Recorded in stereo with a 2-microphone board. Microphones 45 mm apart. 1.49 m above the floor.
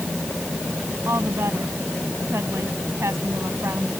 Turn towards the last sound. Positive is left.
turn(degrees=-80)